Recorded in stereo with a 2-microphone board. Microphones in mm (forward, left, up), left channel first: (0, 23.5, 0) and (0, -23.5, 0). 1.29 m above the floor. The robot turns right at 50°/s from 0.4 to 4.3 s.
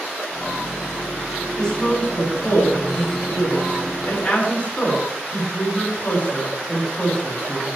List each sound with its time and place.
1.6 s a woman speaking: 15° left (ahead or behind), 9 m; by 7.7 s 25° left (ahead or behind), 9 m